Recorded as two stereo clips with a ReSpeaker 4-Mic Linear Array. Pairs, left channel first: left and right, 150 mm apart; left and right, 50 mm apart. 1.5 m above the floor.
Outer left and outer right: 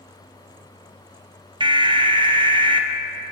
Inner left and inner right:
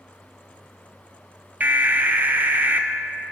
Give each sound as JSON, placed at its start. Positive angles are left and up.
{"t": 1.6, "sound": "an alarm", "side_deg": -30, "distance_m": 0.5}